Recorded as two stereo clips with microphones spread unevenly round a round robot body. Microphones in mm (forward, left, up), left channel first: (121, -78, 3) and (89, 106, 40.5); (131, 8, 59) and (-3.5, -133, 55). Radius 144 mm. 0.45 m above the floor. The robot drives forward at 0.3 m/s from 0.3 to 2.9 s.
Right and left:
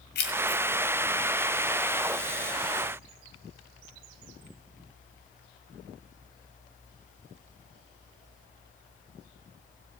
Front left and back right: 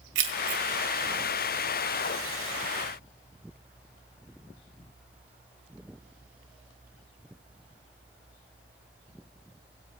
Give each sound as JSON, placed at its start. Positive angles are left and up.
{"t": 0.1, "sound": "keys jangling", "azimuth_deg": -120, "distance_m": 1.7}